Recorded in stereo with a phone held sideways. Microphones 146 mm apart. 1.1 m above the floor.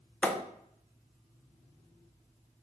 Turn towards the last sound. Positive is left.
turn(degrees=10)  # may be behind; listen again after turning